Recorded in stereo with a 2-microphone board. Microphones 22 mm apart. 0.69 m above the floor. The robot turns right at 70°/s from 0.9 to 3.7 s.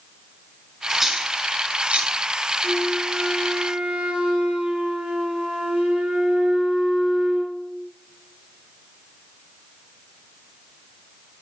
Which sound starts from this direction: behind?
A flute, at 2.6 s.